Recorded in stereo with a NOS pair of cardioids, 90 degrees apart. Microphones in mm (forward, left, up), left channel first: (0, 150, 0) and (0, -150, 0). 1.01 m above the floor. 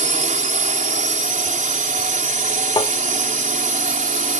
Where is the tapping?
15° left.